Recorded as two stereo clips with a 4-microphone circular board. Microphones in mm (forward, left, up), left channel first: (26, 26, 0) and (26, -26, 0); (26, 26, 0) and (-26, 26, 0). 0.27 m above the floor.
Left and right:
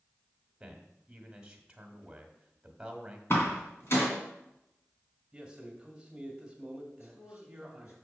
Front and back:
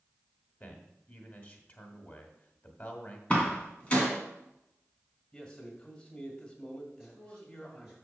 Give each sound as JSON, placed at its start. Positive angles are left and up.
{"t": 0.6, "sound": "a man speaking", "azimuth_deg": -25, "distance_m": 1.3}
{"t": 3.3, "sound": "a door slam", "azimuth_deg": 65, "distance_m": 2.0}
{"t": 5.3, "sound": "a man speaking", "azimuth_deg": -35, "distance_m": 1.7}
{"t": 7.0, "sound": "a man speaking", "azimuth_deg": 105, "distance_m": 4.0}